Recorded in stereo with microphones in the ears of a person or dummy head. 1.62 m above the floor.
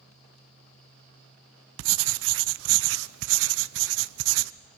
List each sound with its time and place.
1.8 s writing: 70° right (ahead or behind), 0.6 m